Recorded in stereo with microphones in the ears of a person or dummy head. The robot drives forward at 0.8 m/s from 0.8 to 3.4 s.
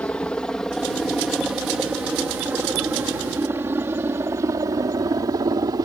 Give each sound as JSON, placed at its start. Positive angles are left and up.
{"t": 0.0, "sound": "a helicopter", "side_deg": 5}